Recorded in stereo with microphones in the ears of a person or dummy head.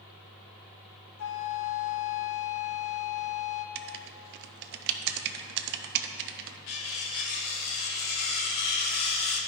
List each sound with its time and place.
1.2 s a flute: 60° left (ahead or behind), 0.6 m
3.8 s writing: 55° right (ahead or behind), 0.6 m
6.7 s cutlery clinking: 55° left (ahead or behind), 1.2 m